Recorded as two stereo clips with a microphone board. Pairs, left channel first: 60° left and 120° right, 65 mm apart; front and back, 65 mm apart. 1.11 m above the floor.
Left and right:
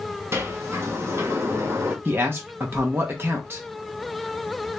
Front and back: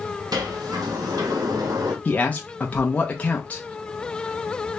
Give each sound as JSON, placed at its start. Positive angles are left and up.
{"t": 0.3, "sound": "a sliding door", "azimuth_deg": -170, "distance_m": 1.0}
{"t": 2.0, "sound": "a man speaking", "azimuth_deg": -65, "distance_m": 0.6}